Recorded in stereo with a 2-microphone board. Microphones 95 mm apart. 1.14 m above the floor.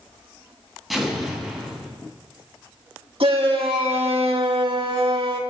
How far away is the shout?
About 2 m.